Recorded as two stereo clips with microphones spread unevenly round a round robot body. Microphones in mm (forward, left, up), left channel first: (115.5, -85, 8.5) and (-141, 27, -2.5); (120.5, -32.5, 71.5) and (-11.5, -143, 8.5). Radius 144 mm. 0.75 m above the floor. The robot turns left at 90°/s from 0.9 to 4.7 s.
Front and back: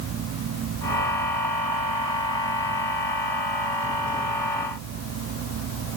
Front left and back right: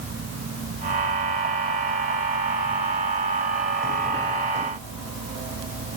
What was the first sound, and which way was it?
Only background noise.